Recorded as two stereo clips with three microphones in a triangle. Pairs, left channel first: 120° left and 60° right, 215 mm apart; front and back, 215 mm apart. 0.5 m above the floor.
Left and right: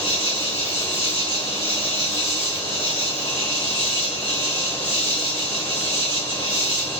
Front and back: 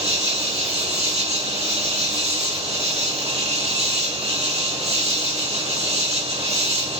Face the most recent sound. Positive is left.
turn(degrees=-125)